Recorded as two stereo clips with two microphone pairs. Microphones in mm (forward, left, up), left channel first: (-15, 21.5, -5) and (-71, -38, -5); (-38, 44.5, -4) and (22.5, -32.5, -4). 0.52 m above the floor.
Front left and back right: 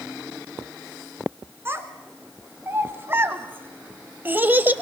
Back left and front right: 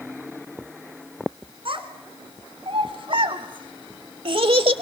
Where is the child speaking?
75° right, 3 m; by 4.8 s 70° right, 1.0 m.